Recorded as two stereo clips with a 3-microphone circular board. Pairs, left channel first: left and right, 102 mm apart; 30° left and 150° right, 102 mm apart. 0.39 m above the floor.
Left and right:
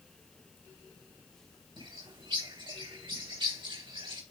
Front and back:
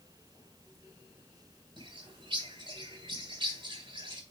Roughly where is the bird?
Behind right.